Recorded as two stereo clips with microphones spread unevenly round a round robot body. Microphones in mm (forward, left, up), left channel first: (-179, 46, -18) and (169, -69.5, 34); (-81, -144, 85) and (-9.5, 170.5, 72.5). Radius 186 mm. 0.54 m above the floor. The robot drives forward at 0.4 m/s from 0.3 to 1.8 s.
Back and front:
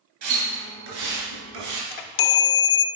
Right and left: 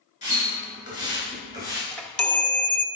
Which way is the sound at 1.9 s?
170° left.